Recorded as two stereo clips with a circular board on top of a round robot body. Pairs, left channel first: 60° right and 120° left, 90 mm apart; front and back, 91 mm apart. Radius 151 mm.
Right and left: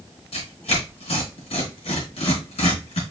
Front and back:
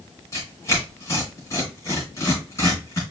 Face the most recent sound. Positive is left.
turn(degrees=-60)